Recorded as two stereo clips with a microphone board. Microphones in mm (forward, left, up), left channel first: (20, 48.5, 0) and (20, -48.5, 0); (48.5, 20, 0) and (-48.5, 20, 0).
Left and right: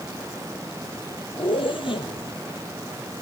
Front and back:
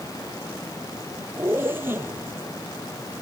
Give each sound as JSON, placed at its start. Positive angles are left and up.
{"t": 1.4, "sound": "a zipper", "azimuth_deg": 115, "distance_m": 2.0}